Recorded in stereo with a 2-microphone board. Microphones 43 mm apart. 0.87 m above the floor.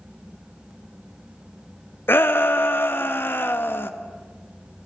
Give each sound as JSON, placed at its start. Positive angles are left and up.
{"t": 2.1, "sound": "a shout", "side_deg": 65, "distance_m": 0.7}